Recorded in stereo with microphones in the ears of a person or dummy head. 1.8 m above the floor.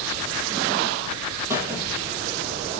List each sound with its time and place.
1.5 s a squeak: 15° right (ahead or behind), 3.5 m